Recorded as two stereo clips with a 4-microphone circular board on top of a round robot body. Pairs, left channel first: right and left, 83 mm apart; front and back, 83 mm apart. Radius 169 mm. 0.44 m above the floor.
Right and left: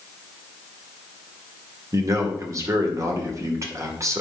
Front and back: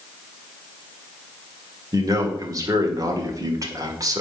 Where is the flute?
I don't hear a flute.